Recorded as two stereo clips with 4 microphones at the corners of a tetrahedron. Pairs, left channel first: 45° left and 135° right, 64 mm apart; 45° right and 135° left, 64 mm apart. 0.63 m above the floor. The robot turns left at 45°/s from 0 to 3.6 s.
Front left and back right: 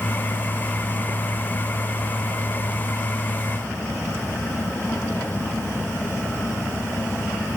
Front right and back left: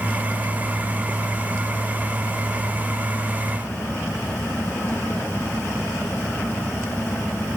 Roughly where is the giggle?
I don't hear a giggle.